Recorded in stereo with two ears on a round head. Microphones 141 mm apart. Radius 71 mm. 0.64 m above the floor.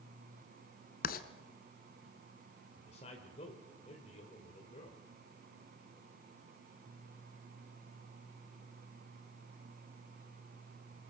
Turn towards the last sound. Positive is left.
turn(degrees=40)  # may be behind; listen again after turning